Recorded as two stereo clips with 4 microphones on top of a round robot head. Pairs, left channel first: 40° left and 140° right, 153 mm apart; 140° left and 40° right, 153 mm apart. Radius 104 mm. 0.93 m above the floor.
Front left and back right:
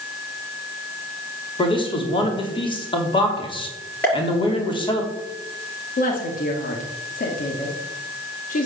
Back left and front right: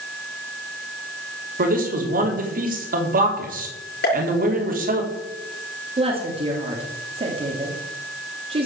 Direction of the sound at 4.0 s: 125° left.